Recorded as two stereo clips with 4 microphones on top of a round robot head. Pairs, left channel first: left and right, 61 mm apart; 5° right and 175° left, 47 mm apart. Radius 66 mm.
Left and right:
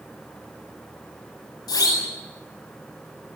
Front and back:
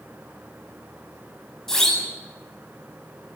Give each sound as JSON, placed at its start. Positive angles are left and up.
{"t": 1.7, "sound": "a siren", "azimuth_deg": 80, "distance_m": 9.5}